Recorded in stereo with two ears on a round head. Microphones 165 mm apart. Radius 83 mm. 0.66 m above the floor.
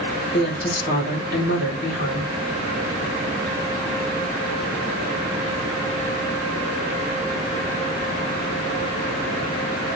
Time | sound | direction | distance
0.3 | a woman speaking | 55° left (ahead or behind) | 1.8 m